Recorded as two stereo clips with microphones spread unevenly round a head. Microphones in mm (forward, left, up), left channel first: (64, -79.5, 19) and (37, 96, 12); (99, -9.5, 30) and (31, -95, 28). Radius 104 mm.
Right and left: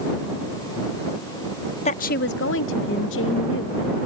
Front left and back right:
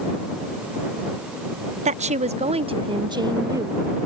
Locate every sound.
1.9 s a woman speaking: 140° right; by 3.9 s 65° right